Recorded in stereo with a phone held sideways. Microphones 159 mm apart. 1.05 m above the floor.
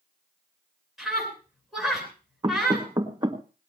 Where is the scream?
Centre (ahead or behind), 10 m.